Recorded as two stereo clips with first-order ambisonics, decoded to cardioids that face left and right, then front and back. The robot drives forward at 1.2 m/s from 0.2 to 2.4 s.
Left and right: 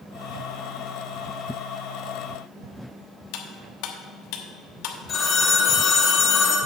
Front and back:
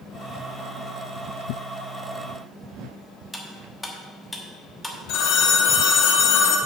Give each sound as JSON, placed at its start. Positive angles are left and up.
{"t": 3.3, "sound": "cutlery clinking", "azimuth_deg": 85, "distance_m": 1.2}
{"t": 5.1, "sound": "a phone ringing", "azimuth_deg": 25, "distance_m": 1.5}